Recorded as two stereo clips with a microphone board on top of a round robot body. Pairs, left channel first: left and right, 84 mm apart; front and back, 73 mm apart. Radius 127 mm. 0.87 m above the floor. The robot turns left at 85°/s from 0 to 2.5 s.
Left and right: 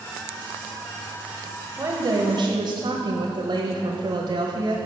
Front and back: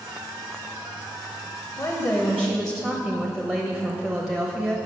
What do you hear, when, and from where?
1.8 s a woman speaking: 30° right, 1.1 m; by 4.8 s 90° right, 1.1 m